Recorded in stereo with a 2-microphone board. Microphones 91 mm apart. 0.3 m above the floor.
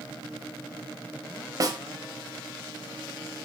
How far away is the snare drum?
About 1.1 m.